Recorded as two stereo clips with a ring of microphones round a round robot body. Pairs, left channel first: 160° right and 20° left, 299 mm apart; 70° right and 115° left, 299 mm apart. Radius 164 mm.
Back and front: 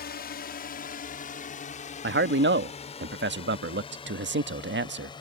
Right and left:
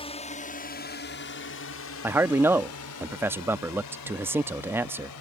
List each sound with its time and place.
0.0 s a drone: 125° right; by 5.2 s 80° right
2.0 s a man speaking: 35° left